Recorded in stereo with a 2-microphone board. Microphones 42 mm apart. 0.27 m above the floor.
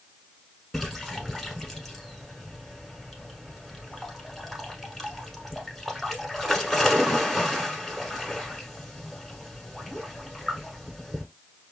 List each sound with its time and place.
0.7 s a splash: centre (ahead or behind), 0.9 m